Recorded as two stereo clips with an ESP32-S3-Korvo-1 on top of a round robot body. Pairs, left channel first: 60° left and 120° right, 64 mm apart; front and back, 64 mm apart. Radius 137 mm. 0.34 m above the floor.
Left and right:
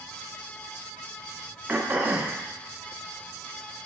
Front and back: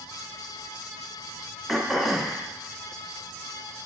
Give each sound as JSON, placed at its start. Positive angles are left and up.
{"t": 1.7, "sound": "throat clearing", "azimuth_deg": -95, "distance_m": 1.3}